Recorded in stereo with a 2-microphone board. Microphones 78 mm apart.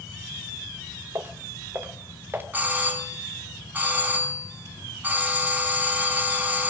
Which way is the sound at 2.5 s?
20° right (ahead or behind).